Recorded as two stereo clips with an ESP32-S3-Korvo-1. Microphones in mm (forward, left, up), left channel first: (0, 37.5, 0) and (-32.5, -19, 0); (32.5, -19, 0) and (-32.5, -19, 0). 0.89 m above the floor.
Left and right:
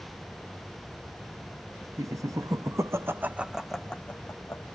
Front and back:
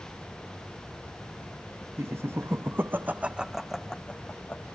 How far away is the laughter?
About 1.6 m.